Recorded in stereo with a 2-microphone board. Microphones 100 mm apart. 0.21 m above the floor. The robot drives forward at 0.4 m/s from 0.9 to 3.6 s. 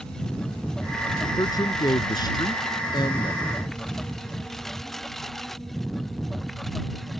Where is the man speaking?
40° left (ahead or behind); by 3.6 s 50° left (ahead or behind).